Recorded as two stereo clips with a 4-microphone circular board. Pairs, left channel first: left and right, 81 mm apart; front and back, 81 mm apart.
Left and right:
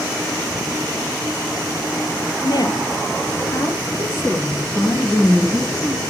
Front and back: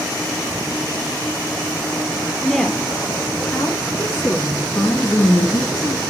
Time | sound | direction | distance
2.4 | a woman speaking | 90° left | 2.5 m